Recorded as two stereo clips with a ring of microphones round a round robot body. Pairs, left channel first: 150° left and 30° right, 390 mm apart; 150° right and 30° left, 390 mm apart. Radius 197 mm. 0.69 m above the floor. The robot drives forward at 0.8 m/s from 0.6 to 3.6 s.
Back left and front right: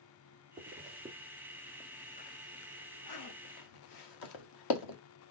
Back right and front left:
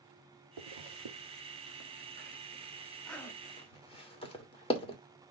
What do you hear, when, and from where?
0.6 s a zipper: 40° left, 1.9 m; by 5.0 s 135° left, 1.8 m